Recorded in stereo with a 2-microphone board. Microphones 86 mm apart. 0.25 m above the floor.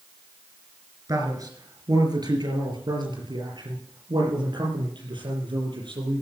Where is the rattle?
I don't hear a rattle.